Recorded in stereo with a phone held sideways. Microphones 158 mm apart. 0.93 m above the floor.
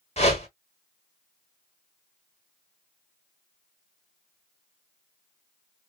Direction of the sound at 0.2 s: 40° left (ahead or behind).